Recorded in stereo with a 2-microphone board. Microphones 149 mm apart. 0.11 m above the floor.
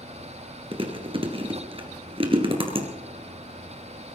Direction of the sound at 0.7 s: 35° right (ahead or behind).